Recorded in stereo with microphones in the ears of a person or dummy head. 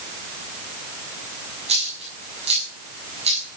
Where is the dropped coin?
30° right (ahead or behind), 5.5 m.